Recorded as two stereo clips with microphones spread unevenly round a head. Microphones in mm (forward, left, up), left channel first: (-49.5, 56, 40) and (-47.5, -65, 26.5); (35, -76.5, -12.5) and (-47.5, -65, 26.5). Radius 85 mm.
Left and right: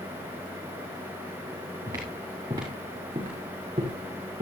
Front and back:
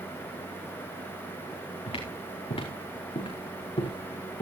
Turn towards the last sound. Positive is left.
turn(degrees=-30)